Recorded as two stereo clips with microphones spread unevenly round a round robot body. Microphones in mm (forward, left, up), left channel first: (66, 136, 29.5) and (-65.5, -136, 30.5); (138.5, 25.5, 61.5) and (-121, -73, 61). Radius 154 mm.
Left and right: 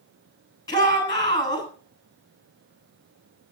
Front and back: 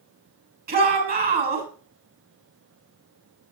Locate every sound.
0.7 s a shout: 140° left, 7 m